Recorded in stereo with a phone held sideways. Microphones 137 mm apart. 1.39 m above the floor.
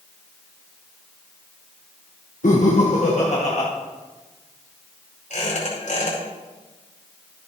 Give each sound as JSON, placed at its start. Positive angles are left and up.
{"t": 2.4, "sound": "laughter", "side_deg": 80, "distance_m": 1.0}
{"t": 5.3, "sound": "a squeak", "side_deg": 80, "distance_m": 5.0}